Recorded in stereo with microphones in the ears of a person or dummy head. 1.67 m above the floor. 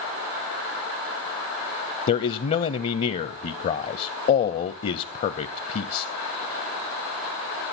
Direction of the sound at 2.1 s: 40° left (ahead or behind).